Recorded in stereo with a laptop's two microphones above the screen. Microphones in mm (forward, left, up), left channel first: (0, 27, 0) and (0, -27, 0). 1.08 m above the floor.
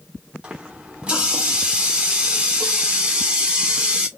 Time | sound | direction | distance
0.4 | a running tap | 20° right (ahead or behind) | 0.6 m